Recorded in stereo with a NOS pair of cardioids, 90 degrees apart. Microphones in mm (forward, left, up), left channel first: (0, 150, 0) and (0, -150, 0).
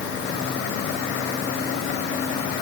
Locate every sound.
Only background noise.